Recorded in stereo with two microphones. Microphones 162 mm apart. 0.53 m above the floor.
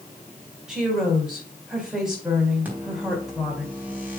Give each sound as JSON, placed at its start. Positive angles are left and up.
{"t": 0.7, "sound": "a woman speaking", "side_deg": -5, "distance_m": 3.5}
{"t": 2.6, "sound": "a microwave", "side_deg": -10, "distance_m": 3.5}